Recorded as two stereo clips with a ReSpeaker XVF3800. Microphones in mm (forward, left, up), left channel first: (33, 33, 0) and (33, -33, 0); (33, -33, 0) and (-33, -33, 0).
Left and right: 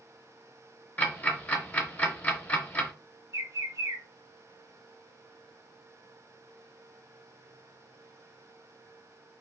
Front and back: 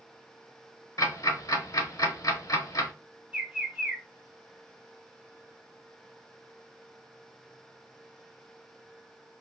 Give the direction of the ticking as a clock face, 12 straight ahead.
11 o'clock.